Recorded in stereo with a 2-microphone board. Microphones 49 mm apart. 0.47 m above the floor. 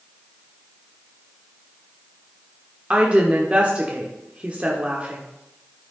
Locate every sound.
2.9 s a woman speaking: 25° right (ahead or behind), 1.2 m